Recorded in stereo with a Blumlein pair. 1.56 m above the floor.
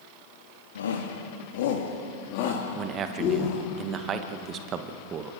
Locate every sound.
0.8 s a shout: 65° left, 2.5 m; by 3.6 s 30° left, 3.5 m
2.8 s a man speaking: 30° right, 1.8 m